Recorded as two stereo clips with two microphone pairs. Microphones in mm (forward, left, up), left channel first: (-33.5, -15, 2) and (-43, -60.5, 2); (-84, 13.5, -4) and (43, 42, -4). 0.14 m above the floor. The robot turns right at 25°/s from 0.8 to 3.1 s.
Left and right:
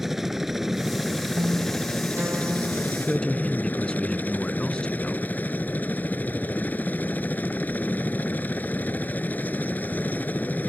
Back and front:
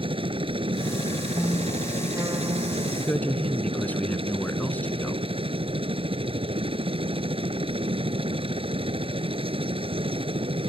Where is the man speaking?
125° left; by 5.2 s 130° left.